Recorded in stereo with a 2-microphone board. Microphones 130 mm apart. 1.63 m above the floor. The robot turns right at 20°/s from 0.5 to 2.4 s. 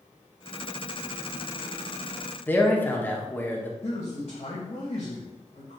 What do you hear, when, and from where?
2.5 s a man speaking: 15° left (ahead or behind), 1.2 m
3.8 s a man speaking: 50° left (ahead or behind), 2 m